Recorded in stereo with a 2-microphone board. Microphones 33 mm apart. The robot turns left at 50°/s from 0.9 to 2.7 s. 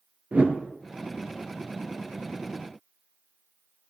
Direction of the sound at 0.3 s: 45° right (ahead or behind).